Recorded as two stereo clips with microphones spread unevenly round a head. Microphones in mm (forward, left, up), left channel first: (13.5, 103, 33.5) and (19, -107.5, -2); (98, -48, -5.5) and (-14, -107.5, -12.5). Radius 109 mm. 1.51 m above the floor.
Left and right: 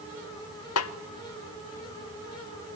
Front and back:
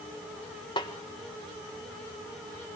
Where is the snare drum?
95° left, 0.9 m.